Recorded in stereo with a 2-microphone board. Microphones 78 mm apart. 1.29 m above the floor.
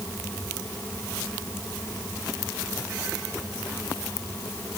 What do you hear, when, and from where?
Only background noise.